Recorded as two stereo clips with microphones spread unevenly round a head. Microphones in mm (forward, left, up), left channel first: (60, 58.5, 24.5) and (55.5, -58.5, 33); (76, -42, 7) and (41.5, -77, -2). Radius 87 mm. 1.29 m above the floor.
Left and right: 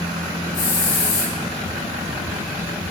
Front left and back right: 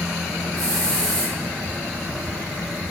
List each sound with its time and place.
0.5 s a hiss: 130° left, 8 m